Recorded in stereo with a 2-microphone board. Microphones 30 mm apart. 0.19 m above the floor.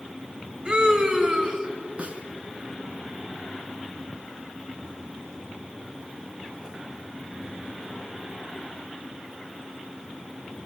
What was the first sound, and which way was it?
A scream, 40° right (ahead or behind).